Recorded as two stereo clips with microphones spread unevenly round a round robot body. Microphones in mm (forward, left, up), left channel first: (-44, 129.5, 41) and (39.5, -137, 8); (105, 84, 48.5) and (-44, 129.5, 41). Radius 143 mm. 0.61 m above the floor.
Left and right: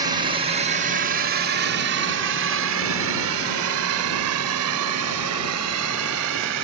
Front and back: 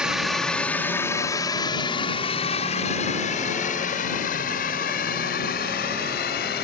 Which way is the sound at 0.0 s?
120° right.